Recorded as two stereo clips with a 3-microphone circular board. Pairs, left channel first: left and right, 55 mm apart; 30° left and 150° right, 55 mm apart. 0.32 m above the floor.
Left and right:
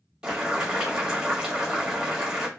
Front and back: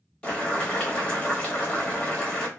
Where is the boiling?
25° right, 1.1 m.